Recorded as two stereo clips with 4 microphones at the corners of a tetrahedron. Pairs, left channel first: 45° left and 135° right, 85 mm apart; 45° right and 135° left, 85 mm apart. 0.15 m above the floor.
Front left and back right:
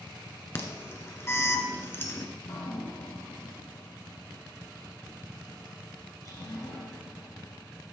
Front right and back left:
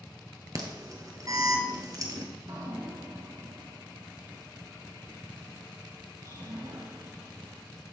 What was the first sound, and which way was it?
An alarm, 100° left.